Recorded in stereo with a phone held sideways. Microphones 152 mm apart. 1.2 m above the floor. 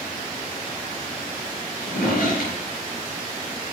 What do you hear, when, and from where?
1.8 s a drawer: 75° left (ahead or behind), 4.5 m